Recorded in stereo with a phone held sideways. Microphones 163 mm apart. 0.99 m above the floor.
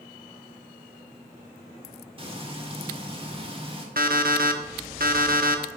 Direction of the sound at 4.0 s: 65° right (ahead or behind).